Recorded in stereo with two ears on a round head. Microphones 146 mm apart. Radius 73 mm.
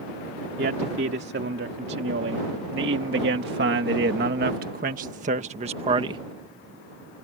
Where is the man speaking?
70° right (ahead or behind); by 6.2 s 30° right (ahead or behind).